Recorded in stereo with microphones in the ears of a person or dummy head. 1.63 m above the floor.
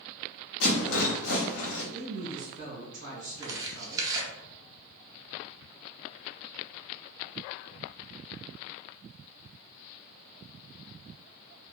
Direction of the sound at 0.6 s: 70° left (ahead or behind).